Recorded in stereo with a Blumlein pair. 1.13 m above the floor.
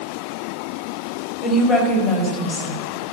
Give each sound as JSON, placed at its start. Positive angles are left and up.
{"t": 1.4, "sound": "a woman speaking", "azimuth_deg": 30, "distance_m": 4.5}